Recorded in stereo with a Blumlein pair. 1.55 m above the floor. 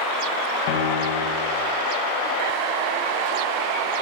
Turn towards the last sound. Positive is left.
turn(degrees=50)